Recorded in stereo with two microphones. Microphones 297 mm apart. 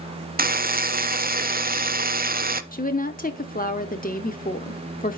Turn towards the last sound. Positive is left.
turn(degrees=25)  # may be behind; listen again after turning